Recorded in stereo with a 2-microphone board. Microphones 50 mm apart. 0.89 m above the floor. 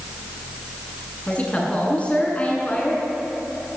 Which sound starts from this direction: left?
A woman speaking, at 1.3 s.